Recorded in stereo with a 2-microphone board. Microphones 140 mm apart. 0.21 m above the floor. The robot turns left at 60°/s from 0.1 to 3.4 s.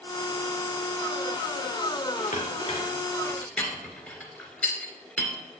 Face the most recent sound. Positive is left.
turn(degrees=10)  # may be behind; listen again after turning